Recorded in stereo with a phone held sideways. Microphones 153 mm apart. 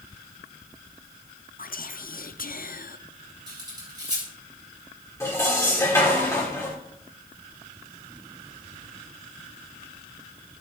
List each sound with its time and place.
1.6 s whispering: 65° left (ahead or behind), 0.6 m
3.5 s cutlery clinking: 30° right (ahead or behind), 3.5 m
5.2 s dishes clattering: 20° left (ahead or behind), 2.5 m